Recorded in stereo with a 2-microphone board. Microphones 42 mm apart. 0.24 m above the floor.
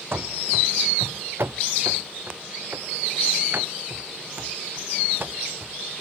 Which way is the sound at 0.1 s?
65° right (ahead or behind).